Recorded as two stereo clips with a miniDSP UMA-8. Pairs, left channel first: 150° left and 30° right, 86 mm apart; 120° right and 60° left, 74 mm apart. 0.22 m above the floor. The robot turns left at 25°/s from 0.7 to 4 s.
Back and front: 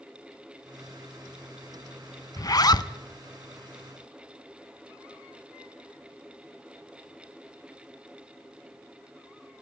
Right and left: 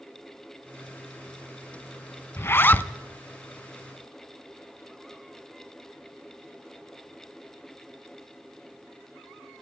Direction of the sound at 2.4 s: 170° right.